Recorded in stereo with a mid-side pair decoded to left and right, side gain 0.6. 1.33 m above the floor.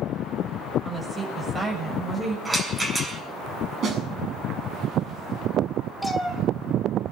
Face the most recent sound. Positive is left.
turn(degrees=0)